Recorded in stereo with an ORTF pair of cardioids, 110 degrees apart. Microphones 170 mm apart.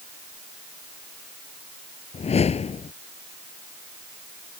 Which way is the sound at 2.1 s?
40° left.